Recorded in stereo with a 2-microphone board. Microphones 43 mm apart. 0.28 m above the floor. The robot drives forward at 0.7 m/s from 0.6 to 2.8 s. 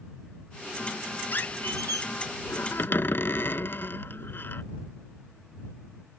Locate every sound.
1.3 s a squeak: 50° left (ahead or behind); by 4.6 s 55° left (ahead or behind)